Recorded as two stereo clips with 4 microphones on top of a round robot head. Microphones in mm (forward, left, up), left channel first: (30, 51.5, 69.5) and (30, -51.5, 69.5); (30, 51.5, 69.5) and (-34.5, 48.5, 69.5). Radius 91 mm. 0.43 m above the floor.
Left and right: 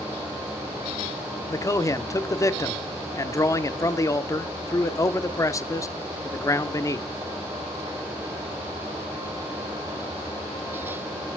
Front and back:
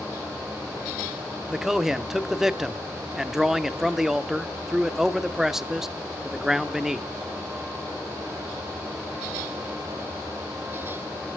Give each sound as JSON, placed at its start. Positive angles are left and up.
{"t": 1.5, "sound": "a man speaking", "azimuth_deg": 100, "distance_m": 0.9}